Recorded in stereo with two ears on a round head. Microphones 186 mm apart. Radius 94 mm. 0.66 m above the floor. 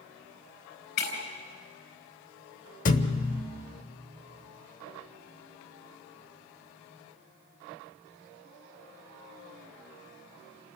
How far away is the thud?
About 1.0 m.